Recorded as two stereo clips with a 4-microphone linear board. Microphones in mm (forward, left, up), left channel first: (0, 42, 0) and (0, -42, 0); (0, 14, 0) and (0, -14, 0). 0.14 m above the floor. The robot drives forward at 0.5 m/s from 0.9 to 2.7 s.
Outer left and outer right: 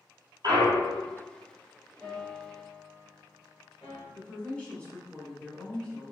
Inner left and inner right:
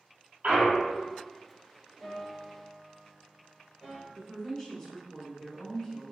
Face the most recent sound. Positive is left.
turn(degrees=15)  # may be behind; listen again after turning